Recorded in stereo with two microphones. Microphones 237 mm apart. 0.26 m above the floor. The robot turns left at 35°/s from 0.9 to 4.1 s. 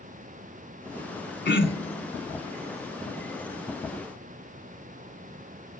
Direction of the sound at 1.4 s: 45° left (ahead or behind).